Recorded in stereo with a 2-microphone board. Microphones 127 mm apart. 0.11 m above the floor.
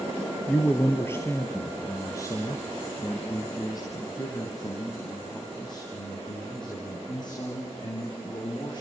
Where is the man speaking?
15° left (ahead or behind), 2 m; by 8.8 s 40° left (ahead or behind), 7.5 m.